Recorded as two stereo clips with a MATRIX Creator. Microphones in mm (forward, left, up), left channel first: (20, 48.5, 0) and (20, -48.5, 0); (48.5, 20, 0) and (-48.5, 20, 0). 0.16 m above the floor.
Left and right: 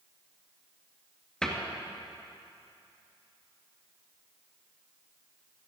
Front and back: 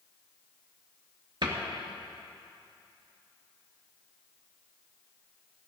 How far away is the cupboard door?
About 2.5 m.